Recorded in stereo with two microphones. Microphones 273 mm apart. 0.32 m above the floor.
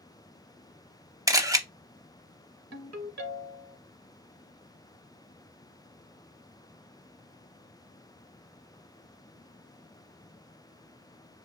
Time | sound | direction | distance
1.3 | a camera shutter | 10° right (ahead or behind) | 0.5 m
2.7 | a ringtone | 70° right (ahead or behind) | 1.0 m